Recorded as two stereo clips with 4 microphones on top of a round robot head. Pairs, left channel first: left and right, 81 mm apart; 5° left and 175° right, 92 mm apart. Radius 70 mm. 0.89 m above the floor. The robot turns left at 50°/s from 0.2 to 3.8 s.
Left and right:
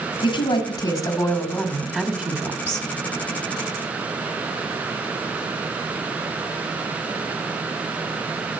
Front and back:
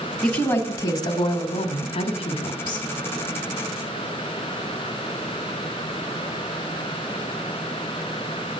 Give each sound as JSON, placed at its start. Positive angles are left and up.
{"t": 0.2, "sound": "a woman speaking", "azimuth_deg": 75, "distance_m": 1.4}